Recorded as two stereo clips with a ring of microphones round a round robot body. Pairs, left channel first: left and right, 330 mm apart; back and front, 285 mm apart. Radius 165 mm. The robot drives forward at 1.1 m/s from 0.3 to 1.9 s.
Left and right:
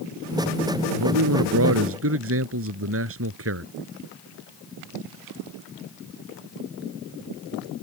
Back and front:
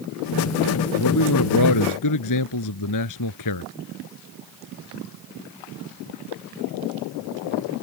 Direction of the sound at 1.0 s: 135° right.